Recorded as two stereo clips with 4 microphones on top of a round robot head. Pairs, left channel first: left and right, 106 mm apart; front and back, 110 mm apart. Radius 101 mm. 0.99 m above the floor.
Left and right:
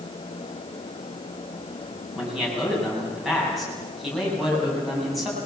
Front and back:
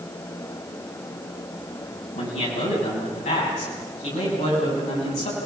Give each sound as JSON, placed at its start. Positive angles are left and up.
{"t": 2.1, "sound": "a man speaking", "azimuth_deg": 0, "distance_m": 8.0}